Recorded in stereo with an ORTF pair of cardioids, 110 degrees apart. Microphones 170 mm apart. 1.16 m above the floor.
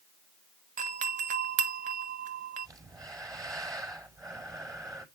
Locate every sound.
0.8 s a doorbell: 50° right, 1.2 m
2.6 s breathing: 20° right, 4.5 m